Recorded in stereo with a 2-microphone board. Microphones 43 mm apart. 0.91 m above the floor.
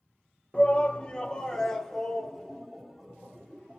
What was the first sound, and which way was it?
A shout, 25° left (ahead or behind).